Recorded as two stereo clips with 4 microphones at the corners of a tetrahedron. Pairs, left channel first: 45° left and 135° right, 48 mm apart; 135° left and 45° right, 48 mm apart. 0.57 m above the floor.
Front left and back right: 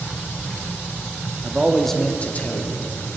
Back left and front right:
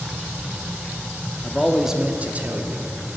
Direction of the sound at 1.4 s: Straight behind.